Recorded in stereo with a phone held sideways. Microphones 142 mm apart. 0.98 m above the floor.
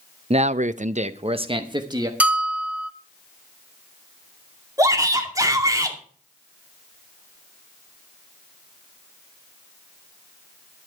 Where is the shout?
25° right (ahead or behind), 2.5 m.